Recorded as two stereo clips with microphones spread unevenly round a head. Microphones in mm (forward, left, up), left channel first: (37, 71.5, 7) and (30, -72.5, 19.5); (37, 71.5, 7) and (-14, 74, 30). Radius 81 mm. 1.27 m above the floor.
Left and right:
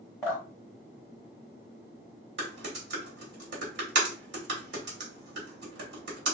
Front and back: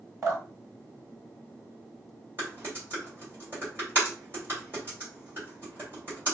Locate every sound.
0.2 s dripping: 170° left, 1.3 m
2.4 s typing on a keyboard: 105° right, 1.4 m